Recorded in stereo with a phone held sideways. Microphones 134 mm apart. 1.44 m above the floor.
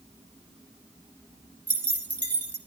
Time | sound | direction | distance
1.7 | keys jangling | 10° left (ahead or behind) | 1.6 m